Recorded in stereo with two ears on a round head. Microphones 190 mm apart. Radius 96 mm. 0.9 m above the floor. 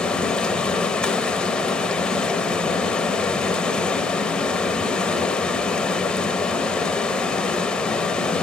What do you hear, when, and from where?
0.0 s running water: 5° left (ahead or behind), 1.0 m